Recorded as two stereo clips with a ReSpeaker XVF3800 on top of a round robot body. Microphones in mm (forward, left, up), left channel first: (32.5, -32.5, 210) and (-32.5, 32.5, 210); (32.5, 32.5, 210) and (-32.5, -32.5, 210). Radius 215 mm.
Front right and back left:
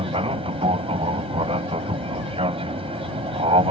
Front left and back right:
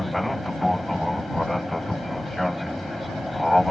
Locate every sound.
0.0 s an aircraft: 135° left